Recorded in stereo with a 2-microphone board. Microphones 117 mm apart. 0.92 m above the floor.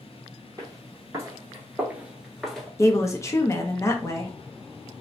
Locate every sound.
0.6 s footsteps: 30° right (ahead or behind), 1.3 m; by 2.7 s 5° left (ahead or behind), 0.9 m
2.8 s a woman speaking: 25° left (ahead or behind), 0.6 m